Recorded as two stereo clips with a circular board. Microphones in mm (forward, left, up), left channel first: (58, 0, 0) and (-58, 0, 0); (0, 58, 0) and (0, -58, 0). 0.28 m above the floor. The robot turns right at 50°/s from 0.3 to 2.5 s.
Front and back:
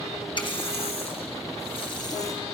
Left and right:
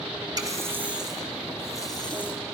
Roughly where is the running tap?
Ahead right.